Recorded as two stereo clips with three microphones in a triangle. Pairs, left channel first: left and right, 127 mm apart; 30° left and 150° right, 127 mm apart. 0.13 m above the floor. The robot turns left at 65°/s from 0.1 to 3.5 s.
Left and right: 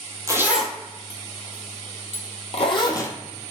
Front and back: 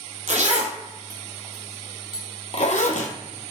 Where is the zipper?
155° right, 0.7 m; by 3.1 s 20° left, 0.7 m.